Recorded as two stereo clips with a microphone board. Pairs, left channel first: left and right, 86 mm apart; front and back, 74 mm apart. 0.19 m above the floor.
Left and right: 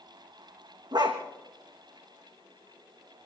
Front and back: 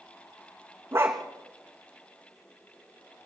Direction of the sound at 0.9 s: 125° right.